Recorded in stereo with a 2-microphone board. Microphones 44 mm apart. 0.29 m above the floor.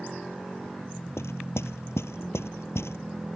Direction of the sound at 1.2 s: 80° left.